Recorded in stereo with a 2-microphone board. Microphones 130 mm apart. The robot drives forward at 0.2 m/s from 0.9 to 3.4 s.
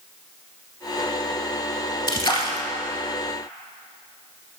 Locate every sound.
2.1 s a splash: 35° left (ahead or behind), 0.7 m; by 2.7 s 40° left (ahead or behind), 0.7 m